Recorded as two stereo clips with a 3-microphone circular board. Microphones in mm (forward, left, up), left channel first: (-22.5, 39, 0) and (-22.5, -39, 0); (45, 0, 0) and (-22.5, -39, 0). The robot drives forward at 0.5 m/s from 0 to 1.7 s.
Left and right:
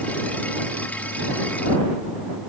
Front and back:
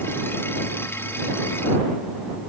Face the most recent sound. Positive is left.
No sound to turn to.